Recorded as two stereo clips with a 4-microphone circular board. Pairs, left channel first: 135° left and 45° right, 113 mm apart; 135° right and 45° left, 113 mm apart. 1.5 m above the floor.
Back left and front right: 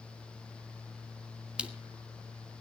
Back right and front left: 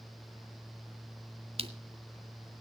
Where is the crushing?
35° left, 1.3 m.